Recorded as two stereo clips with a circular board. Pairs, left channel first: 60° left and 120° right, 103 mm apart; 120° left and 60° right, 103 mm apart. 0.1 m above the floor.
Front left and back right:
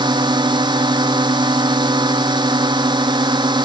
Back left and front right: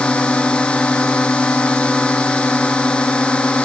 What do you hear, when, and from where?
0.0 s a drone: 160° right